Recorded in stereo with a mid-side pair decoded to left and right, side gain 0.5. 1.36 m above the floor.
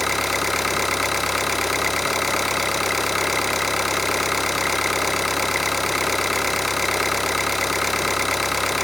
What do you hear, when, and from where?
0.0 s an engine running: 10° left, 0.7 m